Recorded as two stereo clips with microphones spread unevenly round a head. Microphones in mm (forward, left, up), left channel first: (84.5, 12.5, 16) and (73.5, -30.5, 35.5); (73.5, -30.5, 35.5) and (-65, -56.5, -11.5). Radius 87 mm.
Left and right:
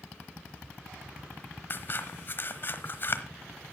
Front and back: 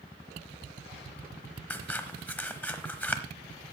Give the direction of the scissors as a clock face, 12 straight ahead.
11 o'clock.